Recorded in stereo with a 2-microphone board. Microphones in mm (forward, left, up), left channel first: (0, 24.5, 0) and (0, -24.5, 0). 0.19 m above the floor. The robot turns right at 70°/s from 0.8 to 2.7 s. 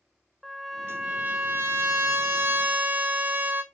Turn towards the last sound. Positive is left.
turn(degrees=-45)